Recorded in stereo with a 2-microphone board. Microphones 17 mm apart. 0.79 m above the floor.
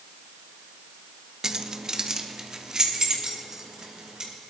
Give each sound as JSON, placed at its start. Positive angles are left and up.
{"t": 1.4, "sound": "keys jangling", "side_deg": -40, "distance_m": 0.6}